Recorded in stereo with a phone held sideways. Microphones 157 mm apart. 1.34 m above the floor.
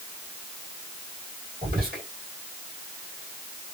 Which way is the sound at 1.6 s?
75° right (ahead or behind).